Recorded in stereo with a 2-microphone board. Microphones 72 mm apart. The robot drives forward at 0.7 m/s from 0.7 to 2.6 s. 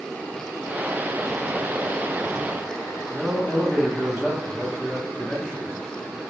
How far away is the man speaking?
About 0.8 m.